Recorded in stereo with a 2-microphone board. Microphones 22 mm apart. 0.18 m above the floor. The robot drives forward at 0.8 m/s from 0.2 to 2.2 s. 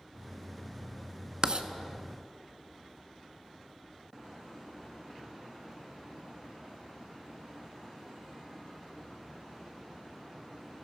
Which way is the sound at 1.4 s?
40° right (ahead or behind).